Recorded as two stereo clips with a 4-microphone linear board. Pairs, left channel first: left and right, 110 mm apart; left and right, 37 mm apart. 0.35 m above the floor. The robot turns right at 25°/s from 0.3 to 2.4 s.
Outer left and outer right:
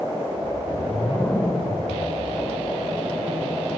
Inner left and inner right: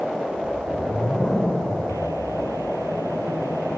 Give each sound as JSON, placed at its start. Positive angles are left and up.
{"t": 0.4, "sound": "a whoosh", "side_deg": 10, "distance_m": 0.7}